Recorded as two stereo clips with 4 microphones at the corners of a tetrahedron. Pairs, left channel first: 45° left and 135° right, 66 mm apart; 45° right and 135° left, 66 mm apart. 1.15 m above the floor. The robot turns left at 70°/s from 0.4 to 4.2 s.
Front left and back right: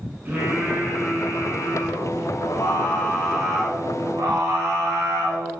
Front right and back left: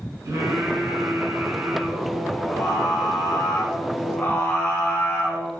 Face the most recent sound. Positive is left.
turn(degrees=-100)